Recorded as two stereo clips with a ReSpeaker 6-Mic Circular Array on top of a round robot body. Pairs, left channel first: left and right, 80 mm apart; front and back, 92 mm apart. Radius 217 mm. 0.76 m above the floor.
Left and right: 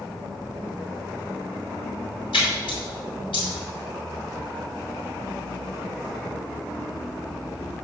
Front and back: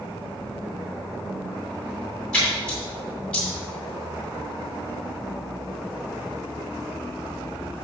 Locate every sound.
2.3 s a splash: 80° left, 2.5 m